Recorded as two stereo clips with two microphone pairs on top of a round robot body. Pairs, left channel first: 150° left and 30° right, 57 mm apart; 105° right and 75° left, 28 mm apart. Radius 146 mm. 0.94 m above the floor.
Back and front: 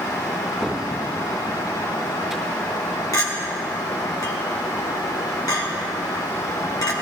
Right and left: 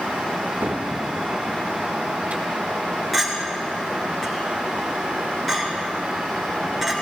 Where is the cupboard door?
60° left, 2 m.